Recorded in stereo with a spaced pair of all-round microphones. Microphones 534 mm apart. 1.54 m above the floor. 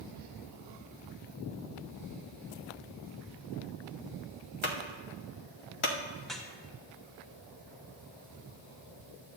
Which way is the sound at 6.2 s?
Centre (ahead or behind).